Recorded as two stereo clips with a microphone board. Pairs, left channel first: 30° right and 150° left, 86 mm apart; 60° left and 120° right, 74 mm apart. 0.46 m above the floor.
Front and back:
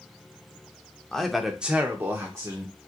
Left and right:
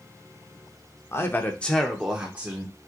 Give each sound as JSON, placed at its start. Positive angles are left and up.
{"t": 1.1, "sound": "a man speaking", "azimuth_deg": 50, "distance_m": 0.8}